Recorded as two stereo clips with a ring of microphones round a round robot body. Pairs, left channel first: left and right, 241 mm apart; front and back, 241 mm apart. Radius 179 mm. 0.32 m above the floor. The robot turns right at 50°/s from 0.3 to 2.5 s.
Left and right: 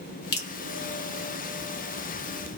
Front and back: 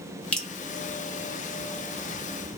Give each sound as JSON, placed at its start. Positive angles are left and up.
{"t": 0.3, "sound": "dripping", "azimuth_deg": 85, "distance_m": 1.6}